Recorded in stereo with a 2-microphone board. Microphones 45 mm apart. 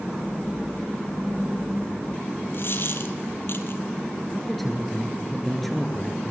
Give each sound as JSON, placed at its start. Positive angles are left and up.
{"t": 2.5, "sound": "a dropped coin", "side_deg": 50, "distance_m": 1.8}
{"t": 4.3, "sound": "a man speaking", "side_deg": 5, "distance_m": 3.0}